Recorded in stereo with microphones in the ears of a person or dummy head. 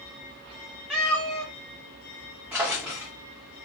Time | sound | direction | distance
0.9 | a cat meowing | 5° right (ahead or behind) | 0.7 m
2.5 | a drawer | 10° right (ahead or behind) | 0.6 m